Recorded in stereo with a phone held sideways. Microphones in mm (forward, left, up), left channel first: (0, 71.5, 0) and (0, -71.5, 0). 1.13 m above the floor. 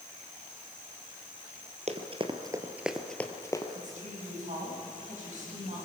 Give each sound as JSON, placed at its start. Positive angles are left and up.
{"t": 1.9, "sound": "running footsteps", "side_deg": -50, "distance_m": 1.7}
{"t": 3.8, "sound": "a woman speaking", "side_deg": -60, "distance_m": 8.0}